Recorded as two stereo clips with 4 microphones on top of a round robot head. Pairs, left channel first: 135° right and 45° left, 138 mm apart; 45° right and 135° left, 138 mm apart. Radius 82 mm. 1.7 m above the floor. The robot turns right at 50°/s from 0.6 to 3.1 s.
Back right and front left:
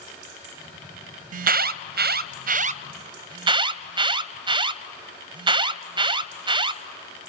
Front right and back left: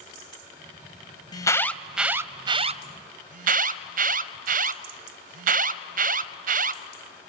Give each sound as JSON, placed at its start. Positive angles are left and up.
{"t": 1.3, "sound": "an alarm", "azimuth_deg": 15, "distance_m": 0.6}